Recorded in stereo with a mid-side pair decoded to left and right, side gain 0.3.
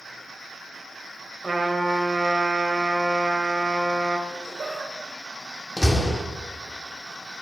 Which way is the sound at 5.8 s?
25° left.